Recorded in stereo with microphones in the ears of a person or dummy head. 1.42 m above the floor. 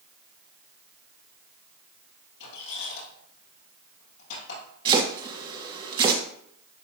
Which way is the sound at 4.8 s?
30° right (ahead or behind).